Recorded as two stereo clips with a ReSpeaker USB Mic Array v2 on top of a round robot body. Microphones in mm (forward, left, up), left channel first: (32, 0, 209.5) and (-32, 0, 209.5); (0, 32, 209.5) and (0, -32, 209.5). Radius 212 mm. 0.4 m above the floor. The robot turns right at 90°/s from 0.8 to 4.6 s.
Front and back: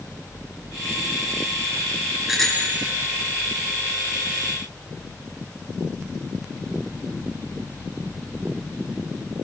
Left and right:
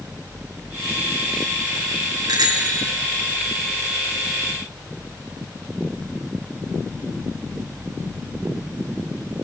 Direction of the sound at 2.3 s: 100° right.